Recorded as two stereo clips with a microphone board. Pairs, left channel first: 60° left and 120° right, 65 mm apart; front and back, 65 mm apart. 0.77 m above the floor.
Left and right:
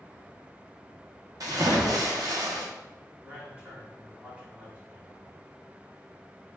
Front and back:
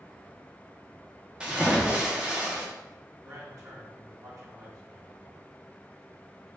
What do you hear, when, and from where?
1.4 s a splash: 105° right, 0.9 m
3.2 s a man speaking: straight behind, 1.4 m